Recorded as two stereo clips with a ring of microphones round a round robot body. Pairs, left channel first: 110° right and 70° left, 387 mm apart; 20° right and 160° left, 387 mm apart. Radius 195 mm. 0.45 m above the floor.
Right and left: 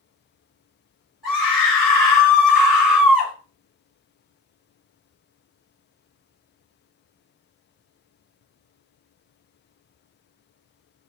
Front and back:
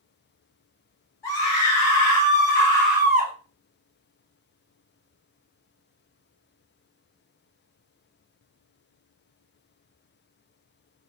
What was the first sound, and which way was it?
A scream, 25° right.